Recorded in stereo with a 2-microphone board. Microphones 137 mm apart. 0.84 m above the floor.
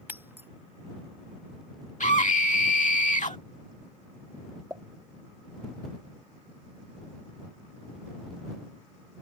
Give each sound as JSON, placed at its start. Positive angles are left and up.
{"t": 0.1, "sound": "breaking glass", "side_deg": -15}
{"t": 2.0, "sound": "a scream", "side_deg": 75}
{"t": 4.7, "sound": "a pop", "side_deg": -20}